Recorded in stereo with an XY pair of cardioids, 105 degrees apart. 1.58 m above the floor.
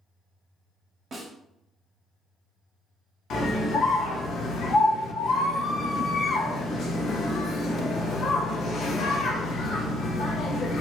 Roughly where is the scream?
Ahead left.